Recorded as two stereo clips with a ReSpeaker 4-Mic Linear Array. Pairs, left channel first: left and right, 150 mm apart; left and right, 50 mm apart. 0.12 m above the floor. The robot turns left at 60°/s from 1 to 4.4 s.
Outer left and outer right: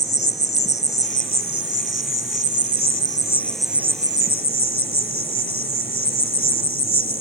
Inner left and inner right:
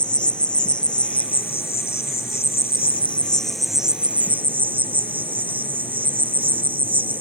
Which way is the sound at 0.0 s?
155° left.